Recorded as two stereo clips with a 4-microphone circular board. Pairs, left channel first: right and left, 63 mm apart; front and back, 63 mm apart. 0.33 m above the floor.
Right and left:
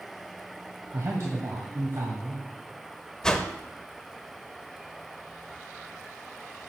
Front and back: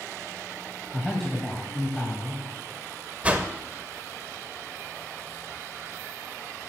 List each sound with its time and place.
0.9 s a man speaking: 85° left, 1.6 m
3.2 s a whoosh: 155° right, 0.8 m